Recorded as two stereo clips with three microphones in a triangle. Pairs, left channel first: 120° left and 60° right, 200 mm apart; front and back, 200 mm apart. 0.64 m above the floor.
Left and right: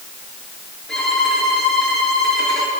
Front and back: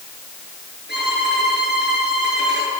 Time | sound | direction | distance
0.9 | a violin | 155° right | 9 m